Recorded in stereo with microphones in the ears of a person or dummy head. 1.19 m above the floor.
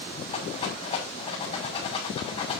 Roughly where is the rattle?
Left.